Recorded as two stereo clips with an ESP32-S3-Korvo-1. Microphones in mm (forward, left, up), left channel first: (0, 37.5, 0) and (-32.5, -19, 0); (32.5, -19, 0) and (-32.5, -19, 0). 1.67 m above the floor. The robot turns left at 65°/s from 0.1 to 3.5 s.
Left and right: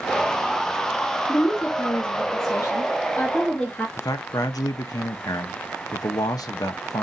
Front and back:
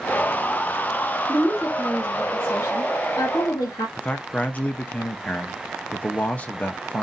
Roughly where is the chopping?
No chopping in this recording.